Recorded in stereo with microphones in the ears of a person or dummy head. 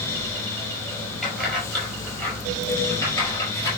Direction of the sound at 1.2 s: Centre (ahead or behind).